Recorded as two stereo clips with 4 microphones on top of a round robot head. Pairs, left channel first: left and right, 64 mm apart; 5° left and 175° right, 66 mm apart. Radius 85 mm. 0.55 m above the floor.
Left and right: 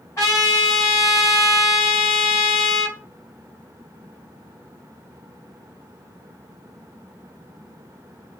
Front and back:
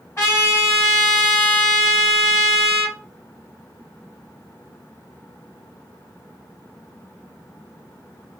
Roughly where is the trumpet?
Ahead left.